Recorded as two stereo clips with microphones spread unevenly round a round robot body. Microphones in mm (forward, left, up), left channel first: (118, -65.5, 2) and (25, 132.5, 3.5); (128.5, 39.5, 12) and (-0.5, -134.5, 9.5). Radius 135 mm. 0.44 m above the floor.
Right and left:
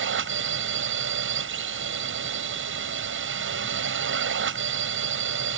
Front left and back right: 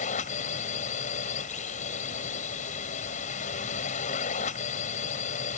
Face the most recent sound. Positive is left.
turn(degrees=110)